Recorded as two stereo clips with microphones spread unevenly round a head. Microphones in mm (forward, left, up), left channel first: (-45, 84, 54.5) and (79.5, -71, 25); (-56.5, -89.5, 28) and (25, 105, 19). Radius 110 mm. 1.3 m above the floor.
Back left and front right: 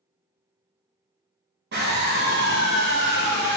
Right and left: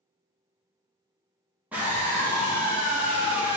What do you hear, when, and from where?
1.7 s a scream: 15° right, 2.5 m